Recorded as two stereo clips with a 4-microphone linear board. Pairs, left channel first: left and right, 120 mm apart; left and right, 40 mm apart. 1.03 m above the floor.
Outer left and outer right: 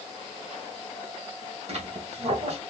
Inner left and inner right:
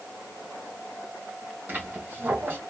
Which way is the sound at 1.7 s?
65° right (ahead or behind).